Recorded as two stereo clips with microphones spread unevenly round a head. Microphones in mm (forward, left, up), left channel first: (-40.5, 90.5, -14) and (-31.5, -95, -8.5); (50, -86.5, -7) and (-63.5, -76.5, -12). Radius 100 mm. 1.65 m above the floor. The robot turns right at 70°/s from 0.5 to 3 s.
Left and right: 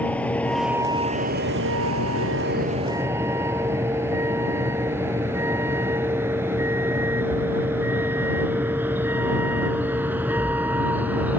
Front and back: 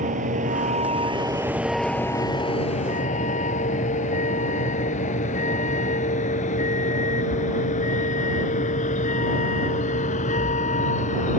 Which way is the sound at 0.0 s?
175° left.